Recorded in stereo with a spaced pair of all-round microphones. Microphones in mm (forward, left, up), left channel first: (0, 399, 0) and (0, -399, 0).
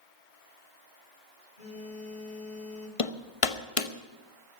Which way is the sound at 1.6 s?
65° left (ahead or behind).